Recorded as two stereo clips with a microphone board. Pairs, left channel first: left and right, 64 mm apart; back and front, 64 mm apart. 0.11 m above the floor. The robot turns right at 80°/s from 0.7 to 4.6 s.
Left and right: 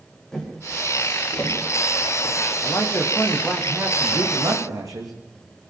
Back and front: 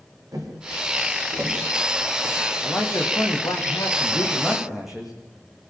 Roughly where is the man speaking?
Behind left.